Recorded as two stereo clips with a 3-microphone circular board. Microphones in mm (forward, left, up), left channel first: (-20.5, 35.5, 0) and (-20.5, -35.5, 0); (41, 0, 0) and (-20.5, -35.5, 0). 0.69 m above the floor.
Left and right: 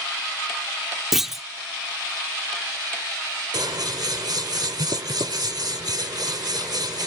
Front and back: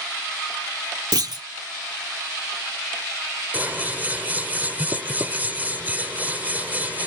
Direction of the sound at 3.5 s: 85° right.